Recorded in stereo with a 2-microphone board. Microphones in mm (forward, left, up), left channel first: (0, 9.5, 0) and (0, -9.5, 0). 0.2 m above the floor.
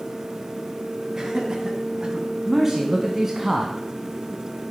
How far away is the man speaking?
About 1.5 m.